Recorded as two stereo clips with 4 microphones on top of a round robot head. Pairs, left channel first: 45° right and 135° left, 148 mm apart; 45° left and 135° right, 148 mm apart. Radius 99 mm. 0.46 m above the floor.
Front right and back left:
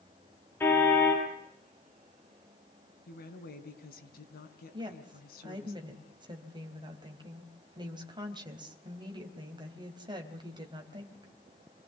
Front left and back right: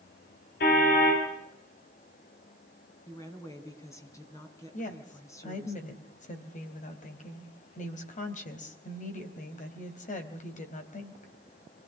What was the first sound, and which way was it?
A car horn, 35° left.